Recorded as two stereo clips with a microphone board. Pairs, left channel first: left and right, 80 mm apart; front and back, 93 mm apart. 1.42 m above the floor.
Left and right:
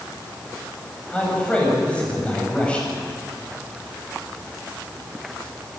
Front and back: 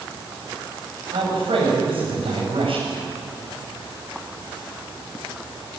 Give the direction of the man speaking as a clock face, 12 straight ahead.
6 o'clock.